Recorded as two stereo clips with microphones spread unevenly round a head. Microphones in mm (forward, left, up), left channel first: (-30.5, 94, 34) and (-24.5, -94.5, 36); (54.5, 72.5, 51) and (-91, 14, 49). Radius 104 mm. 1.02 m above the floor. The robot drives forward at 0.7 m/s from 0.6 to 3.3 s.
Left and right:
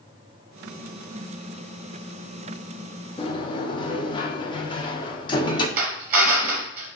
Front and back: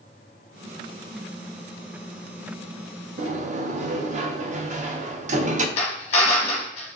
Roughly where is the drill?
Ahead right.